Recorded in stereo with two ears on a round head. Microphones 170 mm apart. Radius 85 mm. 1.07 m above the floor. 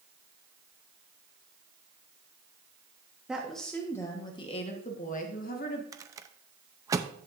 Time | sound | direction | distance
3.3 | a woman speaking | 5° right (ahead or behind) | 1.2 m
5.9 | a rattle | 15° right (ahead or behind) | 0.5 m